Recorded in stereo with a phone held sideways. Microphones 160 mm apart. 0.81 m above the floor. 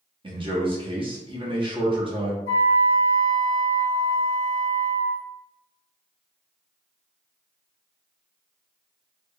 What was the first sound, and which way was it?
A man speaking, 35° right (ahead or behind).